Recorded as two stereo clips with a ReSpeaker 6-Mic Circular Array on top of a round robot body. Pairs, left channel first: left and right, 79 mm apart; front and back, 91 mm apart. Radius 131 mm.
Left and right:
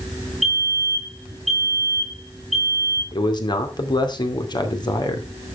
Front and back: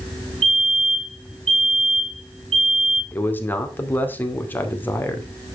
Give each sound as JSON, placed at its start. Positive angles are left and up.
{"t": 0.4, "sound": "a fire alarm", "azimuth_deg": 180, "distance_m": 8.5}
{"t": 3.1, "sound": "a man speaking", "azimuth_deg": 70, "distance_m": 2.5}